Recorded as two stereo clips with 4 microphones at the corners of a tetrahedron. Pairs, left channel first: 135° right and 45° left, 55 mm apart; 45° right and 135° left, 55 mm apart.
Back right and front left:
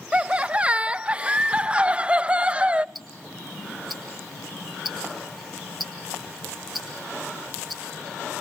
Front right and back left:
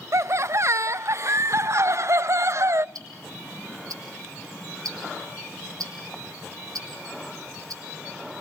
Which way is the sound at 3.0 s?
135° left.